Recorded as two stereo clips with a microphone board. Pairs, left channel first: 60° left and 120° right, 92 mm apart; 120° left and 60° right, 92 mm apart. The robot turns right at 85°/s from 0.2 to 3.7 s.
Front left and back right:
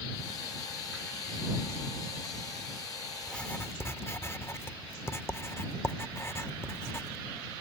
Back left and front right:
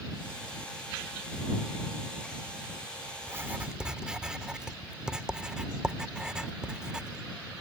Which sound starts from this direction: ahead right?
Writing, at 3.2 s.